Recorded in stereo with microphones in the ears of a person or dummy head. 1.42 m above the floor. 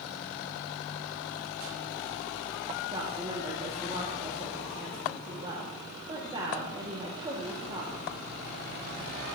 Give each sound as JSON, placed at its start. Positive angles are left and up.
{"t": 2.9, "sound": "a woman speaking", "side_deg": -25, "distance_m": 2.0}